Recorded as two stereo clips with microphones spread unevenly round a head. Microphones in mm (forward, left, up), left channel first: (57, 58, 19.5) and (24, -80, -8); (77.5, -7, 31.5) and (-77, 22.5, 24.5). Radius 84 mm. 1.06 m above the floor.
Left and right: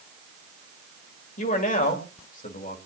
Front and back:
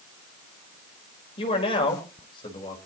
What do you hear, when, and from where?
1.4 s a man speaking: 45° left, 4 m; by 2.8 s 50° left, 5 m